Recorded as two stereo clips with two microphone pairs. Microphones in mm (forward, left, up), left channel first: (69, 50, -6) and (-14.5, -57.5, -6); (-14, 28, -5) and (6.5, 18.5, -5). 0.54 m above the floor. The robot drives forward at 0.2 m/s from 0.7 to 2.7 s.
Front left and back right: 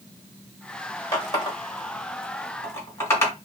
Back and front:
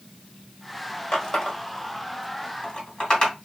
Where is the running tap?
110° left, 1.5 m; by 3.3 s 125° left, 1.7 m.